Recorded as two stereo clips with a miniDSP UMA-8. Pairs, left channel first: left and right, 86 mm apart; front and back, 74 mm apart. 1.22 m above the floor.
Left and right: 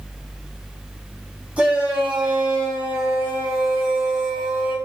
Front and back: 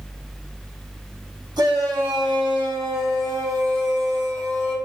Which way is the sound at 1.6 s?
165° right.